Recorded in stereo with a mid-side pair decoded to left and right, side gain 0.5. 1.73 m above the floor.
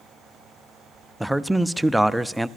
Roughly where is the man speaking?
Ahead.